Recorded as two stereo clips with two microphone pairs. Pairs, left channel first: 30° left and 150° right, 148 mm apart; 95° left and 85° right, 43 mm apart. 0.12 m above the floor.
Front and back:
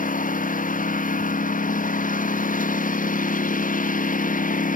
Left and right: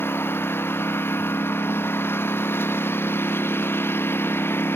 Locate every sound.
0.0 s a lawn mower: 65° left